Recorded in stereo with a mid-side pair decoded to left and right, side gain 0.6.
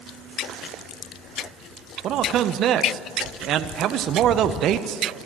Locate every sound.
2.0 s a man speaking: 55° right, 0.9 m